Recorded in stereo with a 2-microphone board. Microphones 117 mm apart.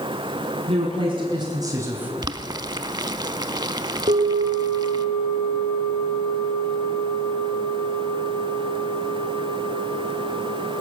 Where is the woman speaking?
55° right (ahead or behind), 2 m; by 2.1 s 10° right (ahead or behind), 1.2 m.